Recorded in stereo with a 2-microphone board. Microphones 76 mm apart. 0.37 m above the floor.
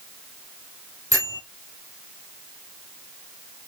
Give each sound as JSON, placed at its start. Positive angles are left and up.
{"t": 1.1, "sound": "a bell", "side_deg": -50, "distance_m": 3.0}